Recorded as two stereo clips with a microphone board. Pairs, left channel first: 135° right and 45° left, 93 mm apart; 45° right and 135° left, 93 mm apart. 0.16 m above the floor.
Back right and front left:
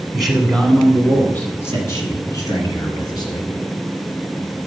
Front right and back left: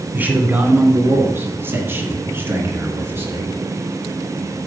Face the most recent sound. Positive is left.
turn(degrees=-165)